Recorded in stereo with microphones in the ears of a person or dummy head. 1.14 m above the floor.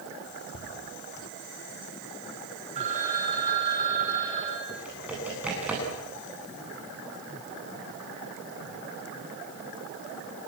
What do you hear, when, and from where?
0.5 s ticking: 70° left (ahead or behind), 7 m
2.8 s a phone ringing: 35° right (ahead or behind), 7.5 m
4.7 s typing on a keyboard: 10° right (ahead or behind), 10 m